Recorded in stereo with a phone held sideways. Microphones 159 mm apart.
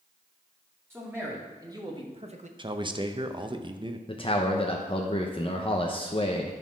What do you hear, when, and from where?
0.9 s a man speaking: 15° right (ahead or behind), 2.5 m; by 2.5 s 50° right (ahead or behind), 0.9 m
2.6 s a man speaking: 30° right (ahead or behind), 0.7 m
4.1 s a man speaking: 35° left (ahead or behind), 0.9 m